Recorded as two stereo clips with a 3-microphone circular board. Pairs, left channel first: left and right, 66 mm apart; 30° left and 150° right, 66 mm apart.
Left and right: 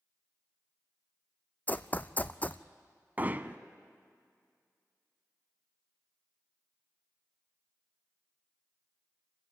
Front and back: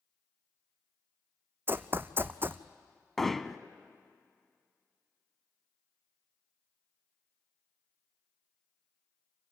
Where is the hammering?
55° right, 0.7 m.